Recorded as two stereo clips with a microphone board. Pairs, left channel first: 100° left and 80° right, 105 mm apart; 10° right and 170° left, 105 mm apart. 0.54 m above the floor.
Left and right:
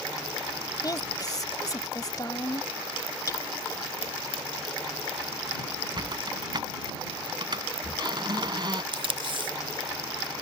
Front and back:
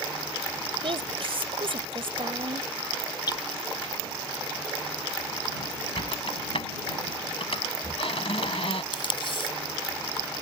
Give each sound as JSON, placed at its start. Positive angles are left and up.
{"t": 0.8, "sound": "a woman speaking", "azimuth_deg": 150}
{"t": 3.3, "sound": "hammering", "azimuth_deg": 40}
{"t": 6.0, "sound": "a squeak", "azimuth_deg": -35}
{"t": 8.9, "sound": "tape being pulled", "azimuth_deg": -45}